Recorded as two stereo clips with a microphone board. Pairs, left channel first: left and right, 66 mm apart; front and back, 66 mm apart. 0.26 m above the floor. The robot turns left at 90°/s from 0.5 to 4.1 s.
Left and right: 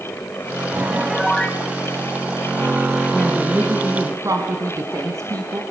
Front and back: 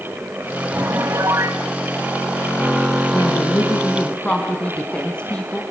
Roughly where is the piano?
Behind right.